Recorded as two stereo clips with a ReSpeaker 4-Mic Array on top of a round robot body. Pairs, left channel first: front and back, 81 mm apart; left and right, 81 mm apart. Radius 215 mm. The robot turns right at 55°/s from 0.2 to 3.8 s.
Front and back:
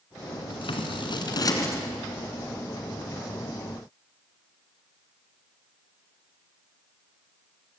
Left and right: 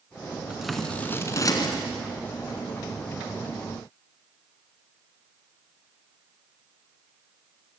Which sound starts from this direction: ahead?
Scissors, at 0.5 s.